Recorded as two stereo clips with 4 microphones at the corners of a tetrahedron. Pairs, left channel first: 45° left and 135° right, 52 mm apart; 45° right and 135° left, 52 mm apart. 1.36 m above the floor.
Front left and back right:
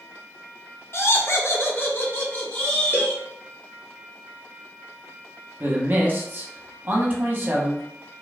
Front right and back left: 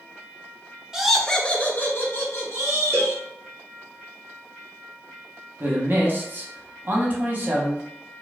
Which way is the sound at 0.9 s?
60° left.